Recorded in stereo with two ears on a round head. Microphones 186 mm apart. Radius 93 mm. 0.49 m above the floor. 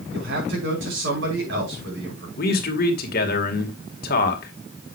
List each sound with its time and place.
0.1 s a man speaking: 65° right (ahead or behind), 5.5 m
2.4 s a man speaking: 50° left (ahead or behind), 2 m